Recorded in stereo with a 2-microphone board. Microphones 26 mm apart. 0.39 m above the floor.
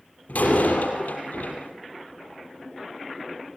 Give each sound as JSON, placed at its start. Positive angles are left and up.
{"t": 0.3, "sound": "a door slam", "side_deg": 80, "distance_m": 6.5}